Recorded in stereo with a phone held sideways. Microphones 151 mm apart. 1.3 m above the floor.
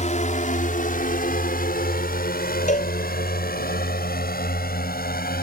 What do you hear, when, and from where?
0.0 s a drone: 50° left (ahead or behind); by 5.4 s 80° left
2.7 s a cowbell: 55° left (ahead or behind)